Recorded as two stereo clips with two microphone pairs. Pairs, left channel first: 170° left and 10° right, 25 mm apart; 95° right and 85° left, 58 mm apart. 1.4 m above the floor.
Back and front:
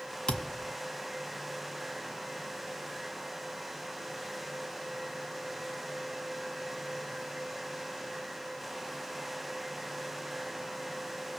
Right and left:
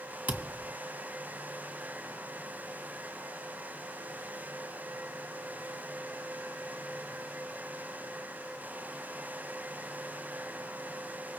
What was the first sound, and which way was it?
A thud, 135° left.